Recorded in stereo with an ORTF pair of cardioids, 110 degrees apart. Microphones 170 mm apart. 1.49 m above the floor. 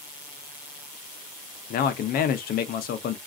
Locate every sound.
1.7 s a man speaking: 60° left, 0.8 m